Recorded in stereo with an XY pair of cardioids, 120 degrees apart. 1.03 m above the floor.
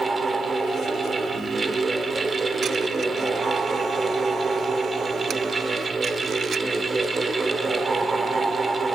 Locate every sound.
0.0 s a fan: 30° right, 1.4 m